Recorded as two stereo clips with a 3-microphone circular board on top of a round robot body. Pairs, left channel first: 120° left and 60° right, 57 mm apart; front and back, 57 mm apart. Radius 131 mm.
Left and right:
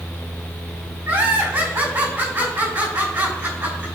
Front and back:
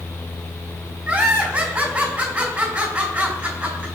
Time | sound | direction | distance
1.1 | laughter | 115° right | 4.5 m